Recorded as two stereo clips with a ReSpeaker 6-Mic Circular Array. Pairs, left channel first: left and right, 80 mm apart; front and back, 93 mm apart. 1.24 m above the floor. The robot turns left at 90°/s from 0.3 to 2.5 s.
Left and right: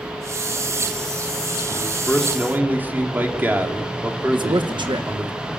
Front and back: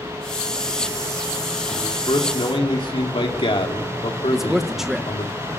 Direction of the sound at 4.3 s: 95° right.